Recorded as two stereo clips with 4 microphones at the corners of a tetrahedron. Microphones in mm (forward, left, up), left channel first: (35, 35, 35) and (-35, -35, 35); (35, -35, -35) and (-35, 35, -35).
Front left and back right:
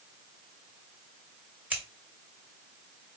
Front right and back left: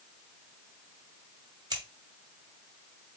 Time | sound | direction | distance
1.7 | scissors | 155° left | 1.9 m